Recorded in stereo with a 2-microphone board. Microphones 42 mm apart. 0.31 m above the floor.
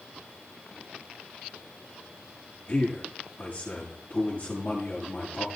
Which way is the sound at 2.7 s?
35° left (ahead or behind).